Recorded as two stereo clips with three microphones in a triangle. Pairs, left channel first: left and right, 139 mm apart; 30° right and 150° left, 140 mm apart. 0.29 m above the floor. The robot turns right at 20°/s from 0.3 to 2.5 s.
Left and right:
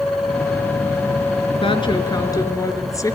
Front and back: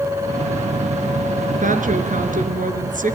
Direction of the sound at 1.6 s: 135° left.